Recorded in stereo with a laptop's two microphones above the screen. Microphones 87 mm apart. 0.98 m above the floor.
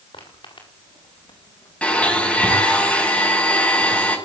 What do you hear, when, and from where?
0.1 s footsteps: 80° left, 7 m; by 2.6 s 55° left (ahead or behind), 4 m
1.8 s a blender: 15° left (ahead or behind), 5.5 m